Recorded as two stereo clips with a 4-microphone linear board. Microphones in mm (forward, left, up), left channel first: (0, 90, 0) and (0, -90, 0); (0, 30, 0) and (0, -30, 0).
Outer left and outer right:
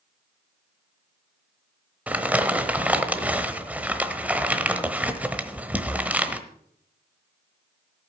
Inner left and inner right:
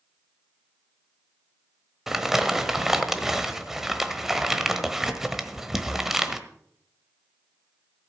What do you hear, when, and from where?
2.1 s crumpling: 10° right (ahead or behind), 1.1 m